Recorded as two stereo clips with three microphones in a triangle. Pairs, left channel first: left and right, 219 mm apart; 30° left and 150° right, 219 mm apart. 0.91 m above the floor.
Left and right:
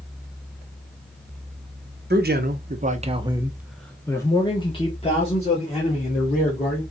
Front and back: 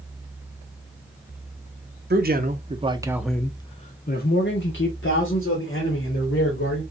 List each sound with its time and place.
2.1 s a man speaking: 120° right, 0.8 m; by 6.8 s 40° left, 1.9 m